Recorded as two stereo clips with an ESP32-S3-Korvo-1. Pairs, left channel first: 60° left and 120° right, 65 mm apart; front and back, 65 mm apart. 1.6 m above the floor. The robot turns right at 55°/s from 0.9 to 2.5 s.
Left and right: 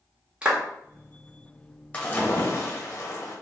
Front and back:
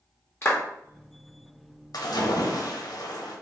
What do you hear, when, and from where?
0.4 s a clap: 50° right, 1.3 m
1.9 s a splash: 10° right, 1.2 m; by 3.4 s 20° left, 1.2 m